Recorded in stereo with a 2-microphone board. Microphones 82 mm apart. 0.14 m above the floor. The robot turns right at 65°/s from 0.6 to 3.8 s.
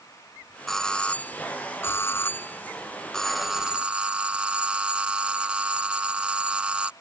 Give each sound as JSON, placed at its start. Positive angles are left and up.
{"t": 0.7, "sound": "a doorbell", "side_deg": 0}